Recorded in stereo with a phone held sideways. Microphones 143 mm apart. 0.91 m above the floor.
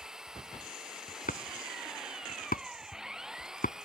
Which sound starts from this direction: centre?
An engine running, at 0.0 s.